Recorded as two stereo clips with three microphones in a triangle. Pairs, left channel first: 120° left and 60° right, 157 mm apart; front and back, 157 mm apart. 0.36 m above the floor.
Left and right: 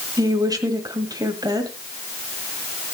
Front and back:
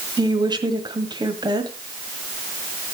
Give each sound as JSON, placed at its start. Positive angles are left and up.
{"t": 0.2, "sound": "a woman speaking", "azimuth_deg": -125, "distance_m": 1.7}